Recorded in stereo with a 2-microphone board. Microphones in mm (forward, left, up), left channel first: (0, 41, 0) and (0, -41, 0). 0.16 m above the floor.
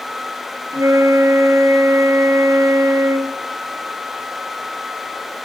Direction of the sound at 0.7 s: 55° right (ahead or behind).